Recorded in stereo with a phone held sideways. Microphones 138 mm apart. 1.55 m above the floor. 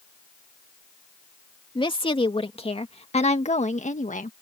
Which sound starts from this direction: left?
A woman speaking, at 1.8 s.